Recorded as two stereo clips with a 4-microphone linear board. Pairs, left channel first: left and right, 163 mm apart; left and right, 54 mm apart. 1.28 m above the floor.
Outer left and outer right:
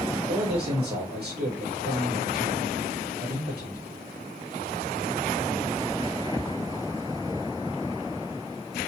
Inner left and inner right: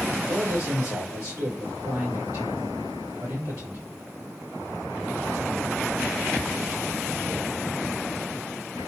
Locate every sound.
0.1 s a man speaking: 80° right, 2 m